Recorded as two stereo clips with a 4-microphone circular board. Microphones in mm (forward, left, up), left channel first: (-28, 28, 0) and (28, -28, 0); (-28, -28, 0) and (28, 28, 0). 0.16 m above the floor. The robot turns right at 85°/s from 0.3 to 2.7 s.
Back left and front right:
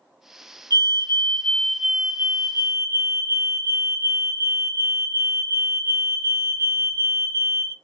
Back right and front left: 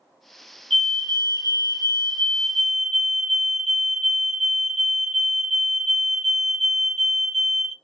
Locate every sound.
0.7 s a fire alarm: 145° left, 3 m; by 7.7 s 45° right, 3 m